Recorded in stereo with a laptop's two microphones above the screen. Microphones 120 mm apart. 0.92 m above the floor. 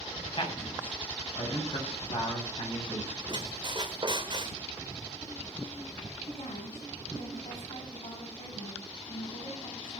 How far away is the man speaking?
About 8 m.